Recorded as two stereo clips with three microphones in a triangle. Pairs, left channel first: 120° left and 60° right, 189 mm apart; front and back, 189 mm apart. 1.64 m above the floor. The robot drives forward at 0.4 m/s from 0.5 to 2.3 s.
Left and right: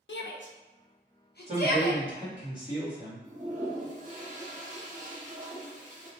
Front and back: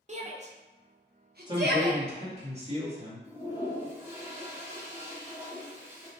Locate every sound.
0.1 s a shout: 130° left, 0.6 m; by 2.0 s 155° left, 1.1 m
1.5 s a man speaking: 115° right, 1.6 m; by 3.3 s 125° right, 1.8 m
3.2 s a toilet flushing: 100° right, 1.0 m